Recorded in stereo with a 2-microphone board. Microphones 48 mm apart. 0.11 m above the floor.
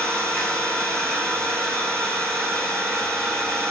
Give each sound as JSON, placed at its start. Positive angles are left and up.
{"t": 0.0, "sound": "an engine running", "side_deg": 0, "distance_m": 3.5}